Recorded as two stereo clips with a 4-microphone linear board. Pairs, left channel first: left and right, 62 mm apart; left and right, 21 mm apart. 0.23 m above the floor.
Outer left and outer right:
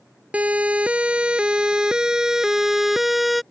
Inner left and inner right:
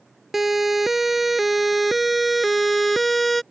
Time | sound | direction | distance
0.3 | a siren | 20° right (ahead or behind) | ?